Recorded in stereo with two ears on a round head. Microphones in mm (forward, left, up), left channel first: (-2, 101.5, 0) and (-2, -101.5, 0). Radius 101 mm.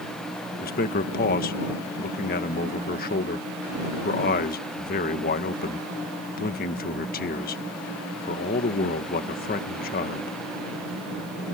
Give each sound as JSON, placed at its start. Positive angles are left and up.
{"t": 0.6, "sound": "a man speaking", "side_deg": 40}